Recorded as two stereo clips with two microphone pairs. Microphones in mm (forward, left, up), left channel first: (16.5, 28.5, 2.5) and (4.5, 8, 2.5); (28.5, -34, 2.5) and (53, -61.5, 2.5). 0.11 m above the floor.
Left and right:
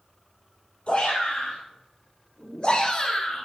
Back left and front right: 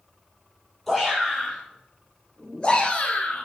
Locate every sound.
0.9 s a shout: 45° left, 3 m; by 3.5 s 115° left, 1.9 m